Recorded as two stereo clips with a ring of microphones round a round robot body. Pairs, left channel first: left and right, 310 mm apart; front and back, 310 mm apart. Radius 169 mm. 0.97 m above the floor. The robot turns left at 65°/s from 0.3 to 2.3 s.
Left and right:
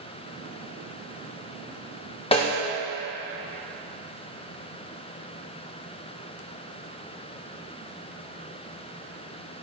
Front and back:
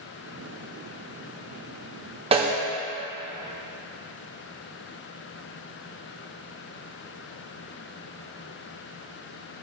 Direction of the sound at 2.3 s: 135° left.